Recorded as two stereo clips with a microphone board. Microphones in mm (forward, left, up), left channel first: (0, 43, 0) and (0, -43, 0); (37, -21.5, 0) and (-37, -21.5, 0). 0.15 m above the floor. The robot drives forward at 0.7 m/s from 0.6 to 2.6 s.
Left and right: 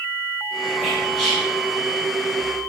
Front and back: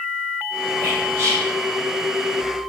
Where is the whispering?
170° left, 1.4 m; by 1.5 s 175° left, 1.7 m.